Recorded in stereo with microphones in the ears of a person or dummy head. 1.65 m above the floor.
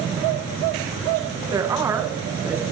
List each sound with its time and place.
1.5 s a woman speaking: 25° right (ahead or behind), 2 m; by 2.6 s 5° right (ahead or behind), 3.5 m